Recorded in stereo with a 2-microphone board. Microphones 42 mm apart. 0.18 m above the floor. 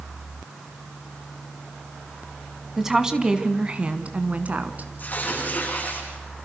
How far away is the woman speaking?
About 1.7 m.